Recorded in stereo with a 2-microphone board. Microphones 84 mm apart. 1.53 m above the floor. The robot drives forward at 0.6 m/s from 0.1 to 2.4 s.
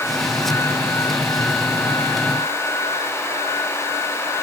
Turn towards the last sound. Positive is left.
No sound to turn to.